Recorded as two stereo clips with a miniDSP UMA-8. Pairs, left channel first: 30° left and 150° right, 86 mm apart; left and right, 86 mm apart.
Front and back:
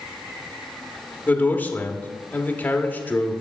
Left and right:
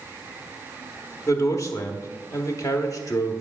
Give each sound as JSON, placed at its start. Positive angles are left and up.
{"t": 1.3, "sound": "a man speaking", "azimuth_deg": 85, "distance_m": 1.0}